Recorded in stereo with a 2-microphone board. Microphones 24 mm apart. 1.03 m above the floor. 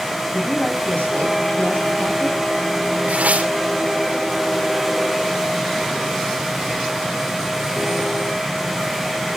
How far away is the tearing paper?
About 2.5 m.